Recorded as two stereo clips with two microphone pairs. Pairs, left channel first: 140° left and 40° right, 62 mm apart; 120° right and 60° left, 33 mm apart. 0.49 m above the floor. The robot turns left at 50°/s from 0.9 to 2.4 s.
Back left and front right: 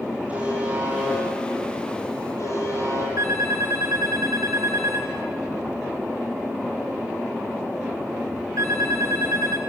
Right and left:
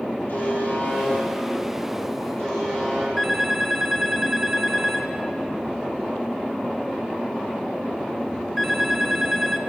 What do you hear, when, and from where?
0.3 s a buzzer: 110° right, 9.5 m; by 3.1 s 175° left, 9.5 m
3.2 s a phone ringing: 35° right, 4 m